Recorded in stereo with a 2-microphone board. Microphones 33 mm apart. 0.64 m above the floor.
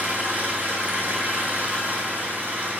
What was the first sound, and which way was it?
An engine running, 60° right (ahead or behind).